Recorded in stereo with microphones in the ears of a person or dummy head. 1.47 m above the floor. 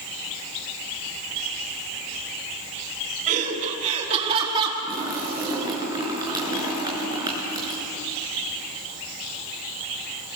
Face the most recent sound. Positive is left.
turn(degrees=-25)  # may be behind; listen again after turning